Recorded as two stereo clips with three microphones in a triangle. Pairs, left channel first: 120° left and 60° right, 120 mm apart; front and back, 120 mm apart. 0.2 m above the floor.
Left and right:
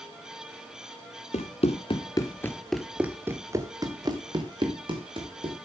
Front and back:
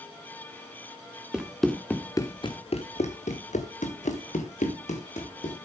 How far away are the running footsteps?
About 1.6 m.